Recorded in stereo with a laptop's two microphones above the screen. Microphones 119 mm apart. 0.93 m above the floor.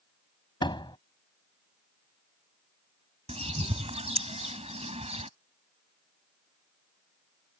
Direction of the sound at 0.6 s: 40° left (ahead or behind).